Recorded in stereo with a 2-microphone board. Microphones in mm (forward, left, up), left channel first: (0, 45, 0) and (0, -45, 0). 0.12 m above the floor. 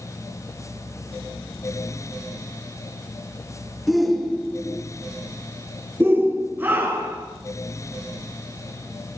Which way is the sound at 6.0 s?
25° right (ahead or behind).